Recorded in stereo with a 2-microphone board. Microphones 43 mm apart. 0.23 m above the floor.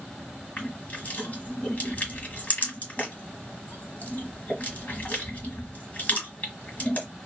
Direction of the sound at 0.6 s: 40° left (ahead or behind).